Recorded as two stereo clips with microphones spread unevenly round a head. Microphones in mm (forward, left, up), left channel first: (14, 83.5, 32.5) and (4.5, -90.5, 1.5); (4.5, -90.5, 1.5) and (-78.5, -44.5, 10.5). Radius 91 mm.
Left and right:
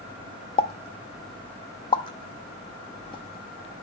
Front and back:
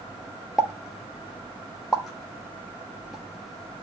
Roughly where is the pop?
Left.